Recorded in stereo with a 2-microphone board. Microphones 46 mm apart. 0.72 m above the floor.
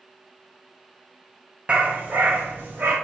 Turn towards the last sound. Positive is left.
turn(degrees=-45)  # may be behind; listen again after turning